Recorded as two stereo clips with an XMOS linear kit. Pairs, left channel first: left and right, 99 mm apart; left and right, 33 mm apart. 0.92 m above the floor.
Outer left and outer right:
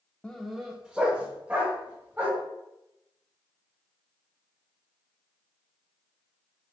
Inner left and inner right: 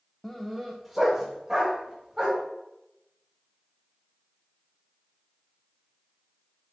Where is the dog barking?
10° left (ahead or behind), 0.5 m; by 2.4 s 20° right (ahead or behind), 2.0 m.